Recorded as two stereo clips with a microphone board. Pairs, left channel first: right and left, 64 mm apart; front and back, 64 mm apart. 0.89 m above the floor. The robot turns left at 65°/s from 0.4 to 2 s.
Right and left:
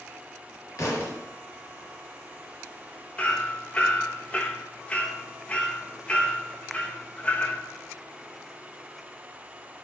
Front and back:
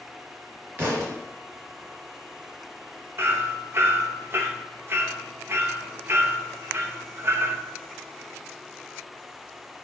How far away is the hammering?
About 0.9 m.